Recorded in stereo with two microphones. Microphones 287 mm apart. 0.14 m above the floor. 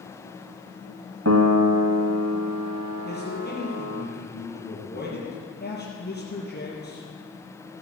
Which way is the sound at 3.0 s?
35° left (ahead or behind).